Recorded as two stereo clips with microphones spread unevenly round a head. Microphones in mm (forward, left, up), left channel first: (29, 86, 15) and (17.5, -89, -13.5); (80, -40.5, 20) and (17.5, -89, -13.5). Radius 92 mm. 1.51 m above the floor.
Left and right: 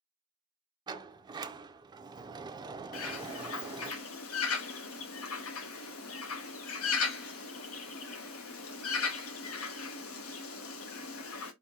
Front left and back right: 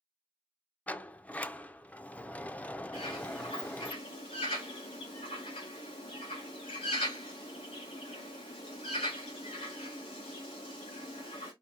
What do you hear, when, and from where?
0.9 s a sliding door: 25° right, 0.5 m
2.9 s a bird: 85° left, 0.9 m